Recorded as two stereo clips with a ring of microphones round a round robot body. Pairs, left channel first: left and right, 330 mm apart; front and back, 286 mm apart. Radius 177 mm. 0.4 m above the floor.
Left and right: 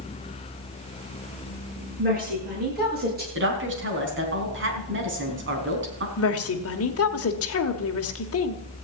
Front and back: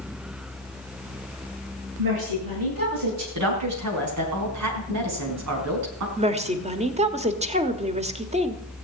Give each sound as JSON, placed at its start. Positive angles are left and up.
{"t": 2.0, "sound": "a woman speaking", "azimuth_deg": -155, "distance_m": 9.5}
{"t": 3.4, "sound": "a woman speaking", "azimuth_deg": -145, "distance_m": 4.0}
{"t": 6.2, "sound": "a woman speaking", "azimuth_deg": 120, "distance_m": 1.8}